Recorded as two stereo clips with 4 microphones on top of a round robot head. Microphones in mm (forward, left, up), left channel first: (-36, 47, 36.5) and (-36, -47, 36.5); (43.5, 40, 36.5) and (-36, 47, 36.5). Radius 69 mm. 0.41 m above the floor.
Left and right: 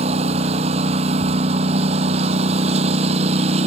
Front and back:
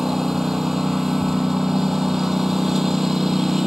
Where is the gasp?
No gasp in this recording.